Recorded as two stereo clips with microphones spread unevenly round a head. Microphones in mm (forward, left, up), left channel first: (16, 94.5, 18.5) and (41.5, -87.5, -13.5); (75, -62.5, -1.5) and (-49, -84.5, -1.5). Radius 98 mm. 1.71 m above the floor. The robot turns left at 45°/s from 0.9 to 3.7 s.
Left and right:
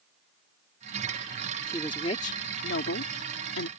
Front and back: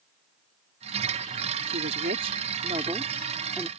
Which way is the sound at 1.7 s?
175° left.